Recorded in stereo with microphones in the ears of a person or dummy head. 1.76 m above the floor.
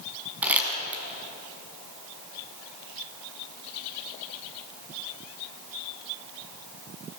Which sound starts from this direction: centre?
Crumpling, at 0.4 s.